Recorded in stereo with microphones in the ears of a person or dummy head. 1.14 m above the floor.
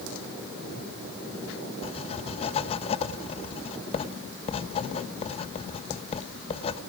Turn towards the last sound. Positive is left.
turn(degrees=35)  # may be behind; listen again after turning